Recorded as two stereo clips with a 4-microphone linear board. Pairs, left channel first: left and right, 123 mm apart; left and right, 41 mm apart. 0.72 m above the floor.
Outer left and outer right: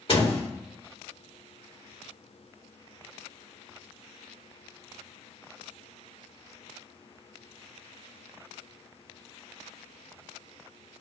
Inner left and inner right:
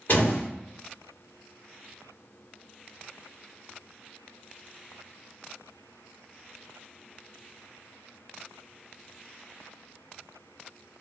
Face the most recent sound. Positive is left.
turn(degrees=50)  # may be behind; listen again after turning